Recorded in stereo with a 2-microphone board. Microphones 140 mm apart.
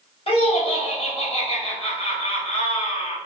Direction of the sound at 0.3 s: 45° left (ahead or behind).